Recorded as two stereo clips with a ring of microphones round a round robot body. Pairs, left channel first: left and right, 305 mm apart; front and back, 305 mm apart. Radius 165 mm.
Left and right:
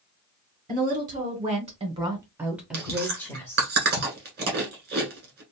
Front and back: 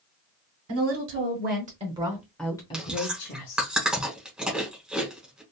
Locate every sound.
0.7 s a woman speaking: 150° right, 1.3 m; by 3.7 s 15° left, 1.1 m
2.7 s chewing: 95° right, 1.1 m